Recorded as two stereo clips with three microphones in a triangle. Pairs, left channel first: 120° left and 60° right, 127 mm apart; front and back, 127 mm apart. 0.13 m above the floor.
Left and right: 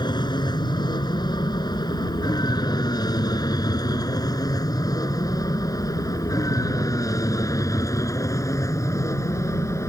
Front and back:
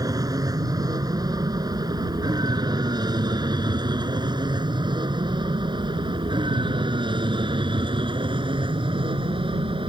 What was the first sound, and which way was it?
An aircraft, 140° left.